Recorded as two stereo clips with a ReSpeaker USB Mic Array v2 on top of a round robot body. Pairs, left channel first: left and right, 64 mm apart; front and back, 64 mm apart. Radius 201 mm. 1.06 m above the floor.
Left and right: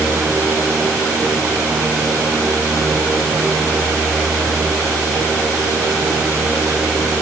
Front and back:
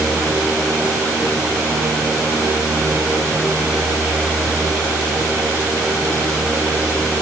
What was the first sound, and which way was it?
Only background noise.